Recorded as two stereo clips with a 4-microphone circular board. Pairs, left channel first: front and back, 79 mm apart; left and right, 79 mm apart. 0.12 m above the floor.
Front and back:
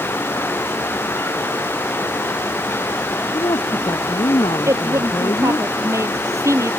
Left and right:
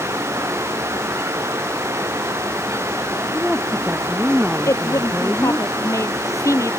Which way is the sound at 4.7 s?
135° left.